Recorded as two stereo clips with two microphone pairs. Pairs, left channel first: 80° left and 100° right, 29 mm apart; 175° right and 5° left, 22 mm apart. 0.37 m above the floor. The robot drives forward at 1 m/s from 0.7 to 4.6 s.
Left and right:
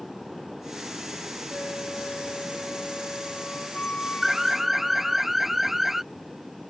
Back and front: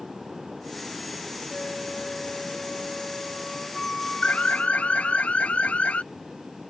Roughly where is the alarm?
Behind.